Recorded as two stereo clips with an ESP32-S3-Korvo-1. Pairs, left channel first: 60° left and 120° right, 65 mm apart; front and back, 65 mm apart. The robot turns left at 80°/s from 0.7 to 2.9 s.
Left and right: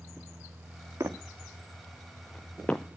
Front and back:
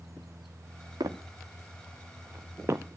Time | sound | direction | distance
1.0 | footsteps | 165° right | 1.8 m